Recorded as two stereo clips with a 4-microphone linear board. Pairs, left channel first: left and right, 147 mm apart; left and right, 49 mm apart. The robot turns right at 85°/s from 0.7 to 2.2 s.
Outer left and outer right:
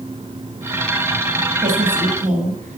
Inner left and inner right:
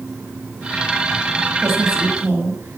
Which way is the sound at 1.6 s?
105° right.